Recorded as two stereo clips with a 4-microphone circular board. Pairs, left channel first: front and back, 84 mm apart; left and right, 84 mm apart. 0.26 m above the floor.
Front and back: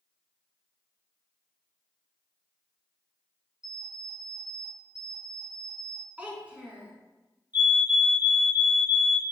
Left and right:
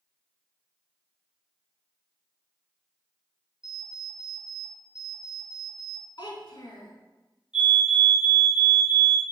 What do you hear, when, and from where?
3.6 s an alarm clock: 45° left, 2 m
6.2 s a child speaking: 105° left, 1.4 m
7.5 s a fire alarm: 160° right, 1.9 m